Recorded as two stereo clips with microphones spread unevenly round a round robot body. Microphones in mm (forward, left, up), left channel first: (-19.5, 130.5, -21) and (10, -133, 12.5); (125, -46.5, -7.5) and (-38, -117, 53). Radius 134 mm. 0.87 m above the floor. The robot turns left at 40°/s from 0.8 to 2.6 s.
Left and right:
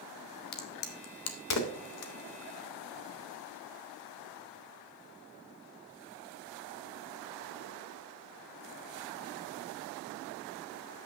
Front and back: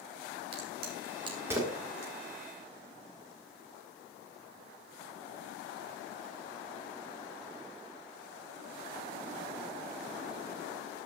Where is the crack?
150° left, 1.5 m; by 2.1 s 95° left, 1.5 m.